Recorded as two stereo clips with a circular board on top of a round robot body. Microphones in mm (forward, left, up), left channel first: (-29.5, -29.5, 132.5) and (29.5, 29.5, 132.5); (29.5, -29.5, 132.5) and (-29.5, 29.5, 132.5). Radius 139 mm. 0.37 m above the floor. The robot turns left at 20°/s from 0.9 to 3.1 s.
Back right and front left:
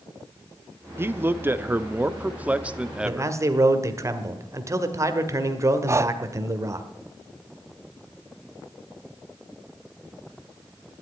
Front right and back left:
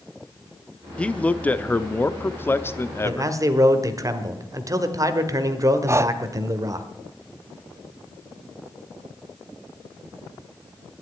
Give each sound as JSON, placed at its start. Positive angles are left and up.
{"t": 1.0, "sound": "a man speaking", "azimuth_deg": 20, "distance_m": 0.9}
{"t": 3.0, "sound": "a man speaking", "azimuth_deg": 95, "distance_m": 1.6}
{"t": 5.9, "sound": "breathing", "azimuth_deg": 90, "distance_m": 0.6}